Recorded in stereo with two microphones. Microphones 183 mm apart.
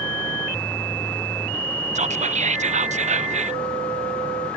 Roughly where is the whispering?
Right.